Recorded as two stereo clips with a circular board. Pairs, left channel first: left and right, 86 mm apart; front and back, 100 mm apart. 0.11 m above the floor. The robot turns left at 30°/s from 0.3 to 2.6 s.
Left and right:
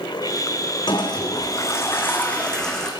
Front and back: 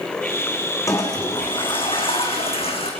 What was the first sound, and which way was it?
A toilet flushing, 60° left.